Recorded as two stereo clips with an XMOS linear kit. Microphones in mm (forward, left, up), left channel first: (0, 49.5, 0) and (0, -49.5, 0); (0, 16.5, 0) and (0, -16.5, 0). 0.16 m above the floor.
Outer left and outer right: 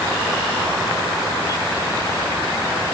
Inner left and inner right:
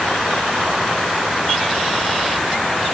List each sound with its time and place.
Only background noise.